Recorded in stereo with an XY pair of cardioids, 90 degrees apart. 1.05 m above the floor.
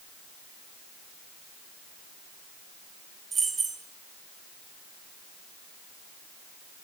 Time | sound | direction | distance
3.3 | keys jangling | 45° right | 1.2 m